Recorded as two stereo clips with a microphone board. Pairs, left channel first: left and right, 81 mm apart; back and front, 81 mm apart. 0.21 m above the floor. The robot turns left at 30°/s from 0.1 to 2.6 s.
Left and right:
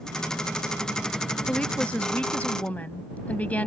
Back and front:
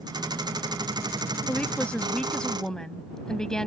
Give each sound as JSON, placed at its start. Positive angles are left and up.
{"t": 1.5, "sound": "a woman speaking", "azimuth_deg": 150}